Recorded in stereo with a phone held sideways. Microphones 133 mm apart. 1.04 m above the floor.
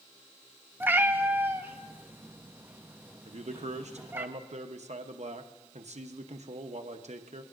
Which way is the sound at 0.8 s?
15° right (ahead or behind).